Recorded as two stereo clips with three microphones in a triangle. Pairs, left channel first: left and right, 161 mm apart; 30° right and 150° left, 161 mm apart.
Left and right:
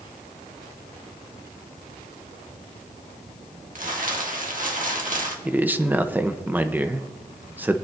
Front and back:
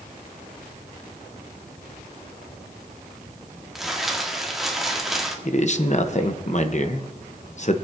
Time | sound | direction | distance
3.8 | crumpling | 120° right | 1.6 m
5.5 | a man speaking | 15° right | 0.8 m